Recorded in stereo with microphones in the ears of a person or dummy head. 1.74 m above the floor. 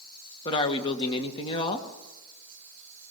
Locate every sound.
0.5 s a man speaking: 25° left (ahead or behind), 2 m